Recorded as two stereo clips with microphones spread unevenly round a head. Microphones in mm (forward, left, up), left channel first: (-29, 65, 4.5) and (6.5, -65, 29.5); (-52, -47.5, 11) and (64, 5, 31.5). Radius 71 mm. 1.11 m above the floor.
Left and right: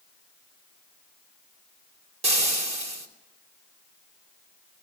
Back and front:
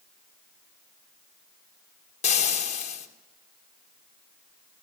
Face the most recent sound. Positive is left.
turn(degrees=-120)